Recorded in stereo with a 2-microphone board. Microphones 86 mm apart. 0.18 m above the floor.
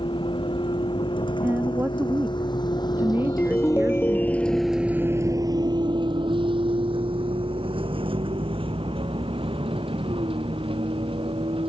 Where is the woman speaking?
25° right (ahead or behind).